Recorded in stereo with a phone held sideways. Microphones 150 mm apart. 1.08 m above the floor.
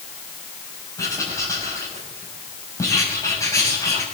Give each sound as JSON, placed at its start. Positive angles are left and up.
{"t": 1.0, "sound": "writing", "side_deg": 20, "distance_m": 6.0}